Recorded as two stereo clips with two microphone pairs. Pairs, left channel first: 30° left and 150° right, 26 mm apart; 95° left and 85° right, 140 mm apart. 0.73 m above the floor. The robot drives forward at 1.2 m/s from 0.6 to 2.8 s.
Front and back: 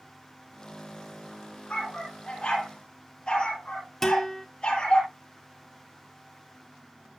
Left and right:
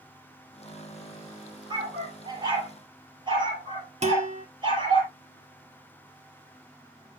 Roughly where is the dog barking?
Ahead right.